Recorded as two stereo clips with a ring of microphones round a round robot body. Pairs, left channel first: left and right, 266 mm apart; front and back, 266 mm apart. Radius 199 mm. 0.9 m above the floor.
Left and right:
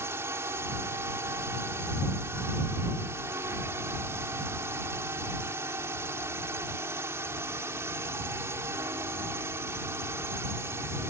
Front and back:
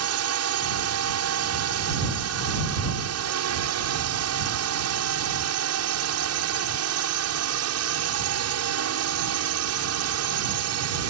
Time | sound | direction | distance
0.0 | a drone | 170° right | ?